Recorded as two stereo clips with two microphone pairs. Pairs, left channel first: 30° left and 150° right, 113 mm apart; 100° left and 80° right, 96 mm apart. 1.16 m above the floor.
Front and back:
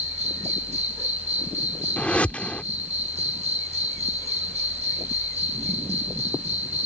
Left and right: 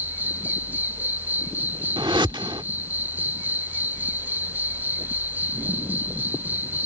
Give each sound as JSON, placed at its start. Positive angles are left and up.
{"t": 0.0, "sound": "an insect", "azimuth_deg": -150}
{"t": 2.0, "sound": "a whoosh", "azimuth_deg": -50}